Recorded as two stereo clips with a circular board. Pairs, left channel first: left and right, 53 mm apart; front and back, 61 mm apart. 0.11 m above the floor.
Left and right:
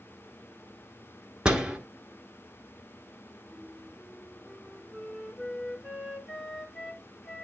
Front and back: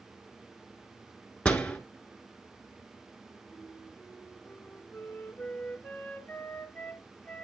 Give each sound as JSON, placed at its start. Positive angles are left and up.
{"t": 1.4, "sound": "a door slam", "azimuth_deg": -45, "distance_m": 1.3}
{"t": 3.5, "sound": "a flute", "azimuth_deg": 0, "distance_m": 1.3}